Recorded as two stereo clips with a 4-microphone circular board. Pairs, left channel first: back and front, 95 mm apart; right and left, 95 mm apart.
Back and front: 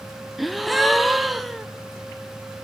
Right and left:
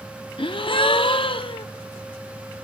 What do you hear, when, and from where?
0.4 s a gasp: 90° right, 0.5 m